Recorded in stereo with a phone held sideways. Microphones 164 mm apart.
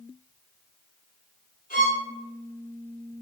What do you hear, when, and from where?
1.7 s a violin: 60° left (ahead or behind), 1.2 m